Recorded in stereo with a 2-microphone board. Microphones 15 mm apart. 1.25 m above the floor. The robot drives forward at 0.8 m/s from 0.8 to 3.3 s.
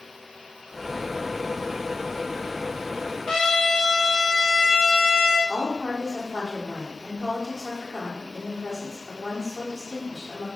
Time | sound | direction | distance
3.3 | a trumpet | 60° left (ahead or behind) | 1.9 m
5.5 | a woman speaking | 15° left (ahead or behind) | 3 m